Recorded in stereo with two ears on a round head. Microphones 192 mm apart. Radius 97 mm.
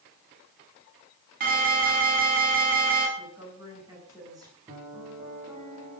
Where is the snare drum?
I don't hear a snare drum.